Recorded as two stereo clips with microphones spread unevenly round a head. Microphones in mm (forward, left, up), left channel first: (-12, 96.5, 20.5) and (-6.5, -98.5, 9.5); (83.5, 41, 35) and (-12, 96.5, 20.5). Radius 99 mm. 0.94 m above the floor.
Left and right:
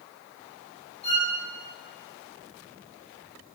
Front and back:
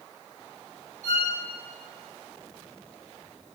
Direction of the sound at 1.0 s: 150° left.